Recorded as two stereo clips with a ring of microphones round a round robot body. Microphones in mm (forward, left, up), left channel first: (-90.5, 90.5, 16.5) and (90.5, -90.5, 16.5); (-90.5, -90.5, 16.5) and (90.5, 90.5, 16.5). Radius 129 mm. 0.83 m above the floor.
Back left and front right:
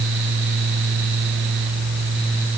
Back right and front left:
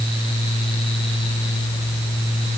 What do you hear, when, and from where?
Only background noise.